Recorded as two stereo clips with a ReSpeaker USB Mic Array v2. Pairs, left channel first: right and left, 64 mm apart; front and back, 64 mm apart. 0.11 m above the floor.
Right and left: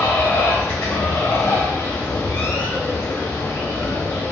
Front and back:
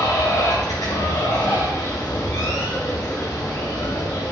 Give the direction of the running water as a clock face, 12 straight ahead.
1 o'clock.